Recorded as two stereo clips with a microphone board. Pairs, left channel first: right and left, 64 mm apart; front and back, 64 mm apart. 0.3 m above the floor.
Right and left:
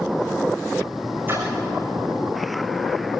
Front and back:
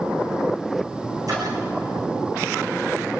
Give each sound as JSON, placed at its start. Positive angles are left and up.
{"t": 1.3, "sound": "a splash", "azimuth_deg": 150, "distance_m": 8.5}